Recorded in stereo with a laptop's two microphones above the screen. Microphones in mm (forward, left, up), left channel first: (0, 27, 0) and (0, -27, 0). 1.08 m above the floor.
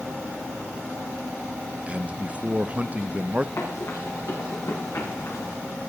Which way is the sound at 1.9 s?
25° right (ahead or behind).